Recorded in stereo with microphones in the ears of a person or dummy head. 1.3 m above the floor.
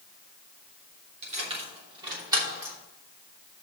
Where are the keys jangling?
35° right (ahead or behind), 2.5 m; by 2.8 s 15° right (ahead or behind), 3 m.